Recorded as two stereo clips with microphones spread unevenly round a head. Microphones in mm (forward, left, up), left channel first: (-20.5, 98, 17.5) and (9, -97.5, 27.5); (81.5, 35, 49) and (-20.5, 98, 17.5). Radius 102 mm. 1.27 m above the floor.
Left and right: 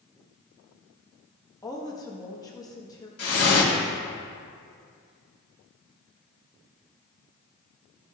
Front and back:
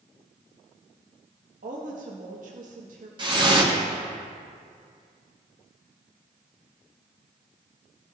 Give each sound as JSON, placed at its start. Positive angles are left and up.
{"t": 1.6, "sound": "a woman speaking", "azimuth_deg": 170, "distance_m": 1.5}
{"t": 3.2, "sound": "dripping", "azimuth_deg": 95, "distance_m": 1.9}